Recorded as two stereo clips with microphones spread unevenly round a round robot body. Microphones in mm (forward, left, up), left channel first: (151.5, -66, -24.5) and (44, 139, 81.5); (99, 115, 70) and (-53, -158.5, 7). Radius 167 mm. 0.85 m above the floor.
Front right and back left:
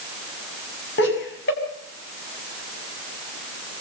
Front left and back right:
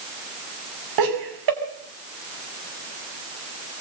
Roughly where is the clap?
No clap in this recording.